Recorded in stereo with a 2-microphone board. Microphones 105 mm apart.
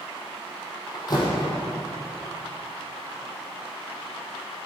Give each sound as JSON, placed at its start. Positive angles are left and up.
{"t": 0.9, "sound": "a door slam", "side_deg": 40, "distance_m": 4.0}